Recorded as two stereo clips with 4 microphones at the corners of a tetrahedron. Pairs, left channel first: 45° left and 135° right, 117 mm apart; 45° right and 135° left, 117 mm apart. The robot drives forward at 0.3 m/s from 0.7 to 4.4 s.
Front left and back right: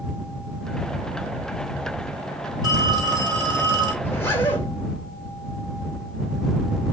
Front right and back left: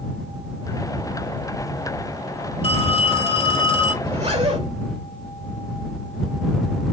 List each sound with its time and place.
2.6 s a phone ringing: 80° right, 3 m; by 3.9 s 90° right, 3 m
4.0 s a zipper: 115° left, 3 m